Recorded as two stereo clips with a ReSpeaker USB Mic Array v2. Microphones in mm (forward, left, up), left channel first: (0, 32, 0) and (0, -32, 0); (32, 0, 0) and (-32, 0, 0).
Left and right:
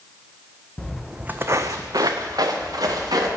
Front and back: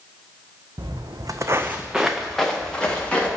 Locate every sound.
0.8 s footsteps: 165° left, 0.6 m; by 3.3 s 75° right, 1.6 m